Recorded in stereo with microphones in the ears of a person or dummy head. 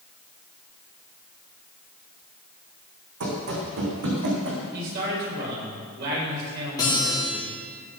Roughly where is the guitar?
Centre.